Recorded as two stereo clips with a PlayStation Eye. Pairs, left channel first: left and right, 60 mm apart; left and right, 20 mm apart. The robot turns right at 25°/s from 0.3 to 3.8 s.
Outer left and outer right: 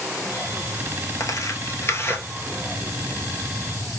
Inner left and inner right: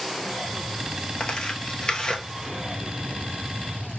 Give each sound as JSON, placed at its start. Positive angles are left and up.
{"t": 1.2, "sound": "tearing paper", "side_deg": 60, "distance_m": 0.8}